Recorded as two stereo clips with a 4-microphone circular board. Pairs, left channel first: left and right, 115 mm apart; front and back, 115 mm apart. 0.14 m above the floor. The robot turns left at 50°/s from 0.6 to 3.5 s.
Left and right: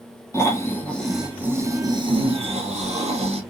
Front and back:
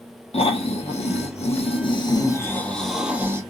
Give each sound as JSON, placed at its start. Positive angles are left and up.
{"t": 0.3, "sound": "snoring", "azimuth_deg": 25, "distance_m": 1.0}